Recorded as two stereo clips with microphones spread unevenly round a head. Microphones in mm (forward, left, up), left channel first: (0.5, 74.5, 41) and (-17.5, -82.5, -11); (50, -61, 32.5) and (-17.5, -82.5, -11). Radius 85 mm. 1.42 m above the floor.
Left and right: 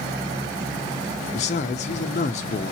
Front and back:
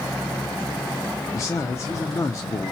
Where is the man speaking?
50° left, 0.5 m.